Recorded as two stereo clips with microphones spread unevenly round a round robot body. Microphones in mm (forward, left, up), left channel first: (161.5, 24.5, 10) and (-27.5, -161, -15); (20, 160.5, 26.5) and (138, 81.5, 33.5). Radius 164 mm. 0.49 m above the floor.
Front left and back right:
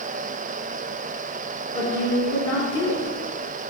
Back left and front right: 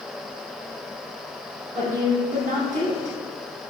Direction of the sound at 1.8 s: 20° right.